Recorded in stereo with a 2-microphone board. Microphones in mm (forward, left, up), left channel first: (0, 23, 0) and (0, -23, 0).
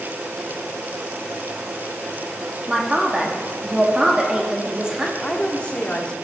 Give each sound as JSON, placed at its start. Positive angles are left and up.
{"t": 2.7, "sound": "a man speaking", "side_deg": -20, "distance_m": 1.2}
{"t": 5.2, "sound": "a woman speaking", "side_deg": 25, "distance_m": 1.1}